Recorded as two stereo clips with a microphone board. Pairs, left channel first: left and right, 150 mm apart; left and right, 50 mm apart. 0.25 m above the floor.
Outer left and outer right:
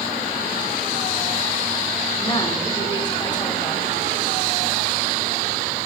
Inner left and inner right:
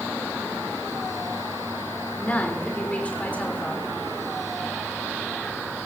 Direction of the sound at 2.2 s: 30° left (ahead or behind).